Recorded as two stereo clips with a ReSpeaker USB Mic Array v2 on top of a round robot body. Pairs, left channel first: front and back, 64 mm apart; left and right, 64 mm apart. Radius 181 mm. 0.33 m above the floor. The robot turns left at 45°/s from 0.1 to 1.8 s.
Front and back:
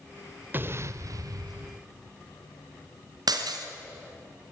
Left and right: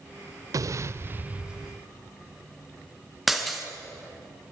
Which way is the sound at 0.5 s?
120° right.